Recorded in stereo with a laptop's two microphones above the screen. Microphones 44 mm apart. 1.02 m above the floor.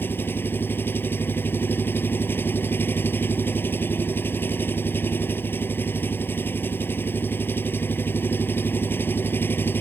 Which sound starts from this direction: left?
An engine running, at 0.0 s.